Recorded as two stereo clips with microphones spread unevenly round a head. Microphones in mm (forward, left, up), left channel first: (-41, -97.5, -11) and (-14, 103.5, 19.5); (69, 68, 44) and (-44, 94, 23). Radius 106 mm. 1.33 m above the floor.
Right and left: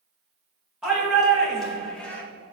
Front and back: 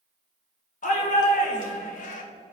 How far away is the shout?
About 2 m.